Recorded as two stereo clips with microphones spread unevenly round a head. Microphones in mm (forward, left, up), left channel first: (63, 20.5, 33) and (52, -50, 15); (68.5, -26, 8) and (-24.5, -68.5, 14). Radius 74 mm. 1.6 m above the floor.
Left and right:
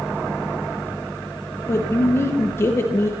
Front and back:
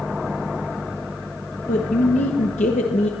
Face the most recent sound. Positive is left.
turn(degrees=35)